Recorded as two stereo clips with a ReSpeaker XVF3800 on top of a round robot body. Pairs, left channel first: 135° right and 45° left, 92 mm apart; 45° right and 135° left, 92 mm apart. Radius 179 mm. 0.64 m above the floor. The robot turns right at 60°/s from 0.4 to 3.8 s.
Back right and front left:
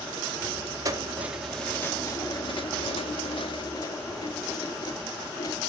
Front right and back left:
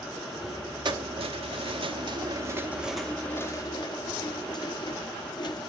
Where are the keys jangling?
95° left, 1.2 m; by 5.6 s 85° right, 1.2 m.